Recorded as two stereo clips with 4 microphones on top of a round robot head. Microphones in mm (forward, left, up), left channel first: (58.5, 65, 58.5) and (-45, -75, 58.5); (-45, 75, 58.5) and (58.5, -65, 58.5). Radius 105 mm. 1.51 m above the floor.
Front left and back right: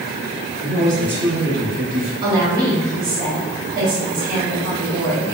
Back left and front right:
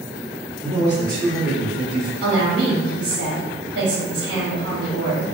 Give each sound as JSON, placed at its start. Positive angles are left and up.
{"t": 0.6, "sound": "a man speaking", "azimuth_deg": -165, "distance_m": 0.9}
{"t": 2.2, "sound": "a woman speaking", "azimuth_deg": -85, "distance_m": 1.1}